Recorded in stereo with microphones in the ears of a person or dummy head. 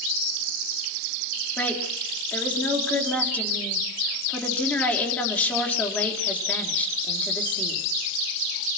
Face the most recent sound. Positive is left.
turn(degrees=10)  # may be behind; listen again after turning